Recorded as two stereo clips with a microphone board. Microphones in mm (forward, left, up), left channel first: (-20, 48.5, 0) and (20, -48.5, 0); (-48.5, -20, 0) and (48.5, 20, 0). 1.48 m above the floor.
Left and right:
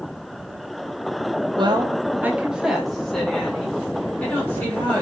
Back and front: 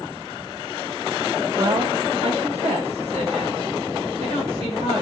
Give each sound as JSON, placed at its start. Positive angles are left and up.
{"t": 1.6, "sound": "a woman speaking", "azimuth_deg": -30, "distance_m": 0.8}